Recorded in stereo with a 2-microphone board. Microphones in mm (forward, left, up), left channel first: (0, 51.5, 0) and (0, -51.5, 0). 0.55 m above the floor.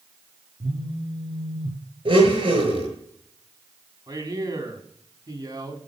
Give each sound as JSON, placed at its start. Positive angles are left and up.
{"t": 0.6, "sound": "a phone buzzing", "side_deg": -45, "distance_m": 2.5}
{"t": 2.0, "sound": "a blender", "side_deg": -55, "distance_m": 7.5}
{"t": 4.1, "sound": "a man speaking", "side_deg": -35, "distance_m": 4.5}